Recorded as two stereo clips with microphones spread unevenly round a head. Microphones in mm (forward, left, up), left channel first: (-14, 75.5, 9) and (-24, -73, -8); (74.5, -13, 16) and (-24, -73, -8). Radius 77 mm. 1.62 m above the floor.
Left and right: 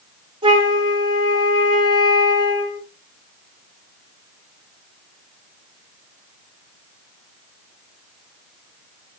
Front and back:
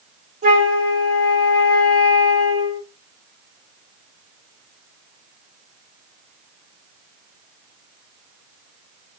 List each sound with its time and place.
0.4 s a flute: 150° right, 5.5 m